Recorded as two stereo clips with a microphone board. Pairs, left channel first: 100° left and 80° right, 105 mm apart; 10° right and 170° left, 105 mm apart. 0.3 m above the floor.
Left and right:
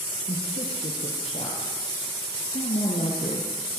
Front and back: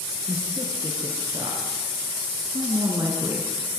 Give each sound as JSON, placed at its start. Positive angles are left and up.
{"t": 0.3, "sound": "a woman speaking", "azimuth_deg": 120, "distance_m": 6.0}